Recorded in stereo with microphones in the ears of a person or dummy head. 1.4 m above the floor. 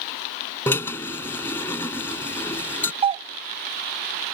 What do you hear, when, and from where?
0.7 s a drill: 15° left (ahead or behind)
3.0 s a doorbell: 25° right (ahead or behind)